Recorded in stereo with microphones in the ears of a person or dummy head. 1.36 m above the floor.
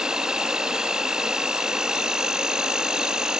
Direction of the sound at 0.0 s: 5° right (ahead or behind).